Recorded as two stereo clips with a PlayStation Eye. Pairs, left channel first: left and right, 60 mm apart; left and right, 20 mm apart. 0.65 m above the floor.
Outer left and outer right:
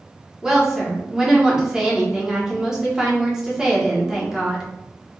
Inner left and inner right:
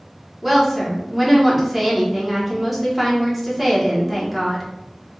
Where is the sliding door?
No sliding door in this recording.